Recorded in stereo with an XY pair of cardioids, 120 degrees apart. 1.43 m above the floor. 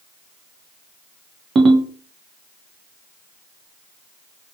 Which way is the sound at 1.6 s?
40° right.